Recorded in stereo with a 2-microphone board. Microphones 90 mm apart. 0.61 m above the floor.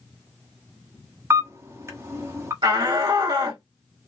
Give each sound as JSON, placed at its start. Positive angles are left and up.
{"t": 1.3, "sound": "a camera shutter", "side_deg": -30, "distance_m": 1.1}
{"t": 2.6, "sound": "a shout", "side_deg": -60, "distance_m": 1.9}